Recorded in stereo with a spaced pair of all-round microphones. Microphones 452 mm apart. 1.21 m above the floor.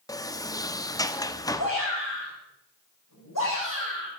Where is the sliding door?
10° left (ahead or behind), 0.7 m.